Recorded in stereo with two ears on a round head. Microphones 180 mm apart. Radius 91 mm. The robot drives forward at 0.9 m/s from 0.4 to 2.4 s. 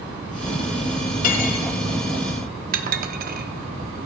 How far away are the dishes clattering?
About 0.9 m.